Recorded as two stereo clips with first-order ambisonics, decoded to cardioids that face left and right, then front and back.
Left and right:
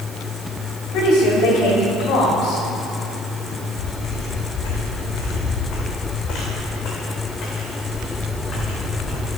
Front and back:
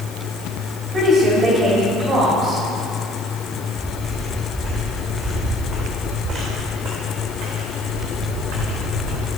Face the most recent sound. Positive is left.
turn(degrees=160)